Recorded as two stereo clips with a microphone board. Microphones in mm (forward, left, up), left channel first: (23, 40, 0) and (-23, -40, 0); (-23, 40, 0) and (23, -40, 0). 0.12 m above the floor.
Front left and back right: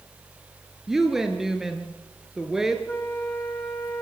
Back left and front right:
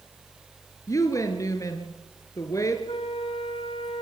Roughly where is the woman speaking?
Behind left.